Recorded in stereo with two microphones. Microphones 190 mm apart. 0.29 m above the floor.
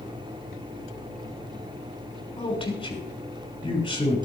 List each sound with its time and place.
0.0 s an engine running: 30° right (ahead or behind), 5.5 m
2.4 s a man speaking: 30° left (ahead or behind), 3 m